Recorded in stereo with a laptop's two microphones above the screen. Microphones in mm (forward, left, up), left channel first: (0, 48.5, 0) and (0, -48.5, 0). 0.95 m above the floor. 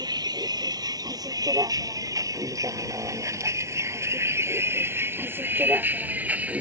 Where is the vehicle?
45° right (ahead or behind); by 6.6 s 15° right (ahead or behind).